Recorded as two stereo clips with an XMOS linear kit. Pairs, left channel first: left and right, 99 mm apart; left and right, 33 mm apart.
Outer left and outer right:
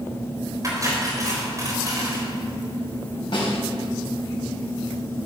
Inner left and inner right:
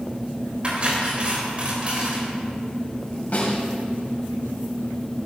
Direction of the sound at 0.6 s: 35° right (ahead or behind).